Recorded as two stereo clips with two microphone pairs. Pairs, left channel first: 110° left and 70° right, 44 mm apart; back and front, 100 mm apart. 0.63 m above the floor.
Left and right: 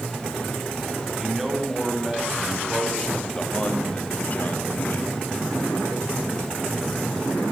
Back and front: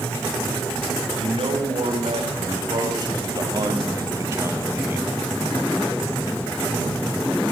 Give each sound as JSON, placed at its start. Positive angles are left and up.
{"t": 1.2, "sound": "a man speaking", "azimuth_deg": 10, "distance_m": 4.0}